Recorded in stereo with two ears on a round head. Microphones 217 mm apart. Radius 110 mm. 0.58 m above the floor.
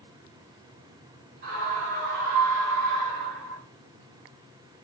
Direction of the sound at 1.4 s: 45° right (ahead or behind).